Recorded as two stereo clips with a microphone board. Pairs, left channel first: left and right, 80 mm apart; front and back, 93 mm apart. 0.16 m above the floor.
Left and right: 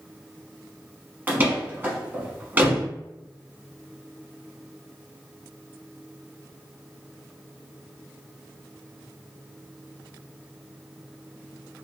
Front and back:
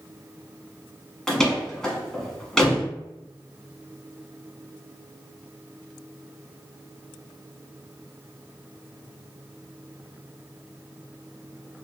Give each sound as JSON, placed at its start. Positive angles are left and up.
{"t": 1.3, "sound": "a door slam", "azimuth_deg": -75, "distance_m": 0.9}